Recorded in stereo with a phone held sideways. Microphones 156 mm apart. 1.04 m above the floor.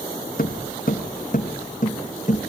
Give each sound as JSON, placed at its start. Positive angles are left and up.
{"t": 0.4, "sound": "footsteps", "side_deg": 65, "distance_m": 3.5}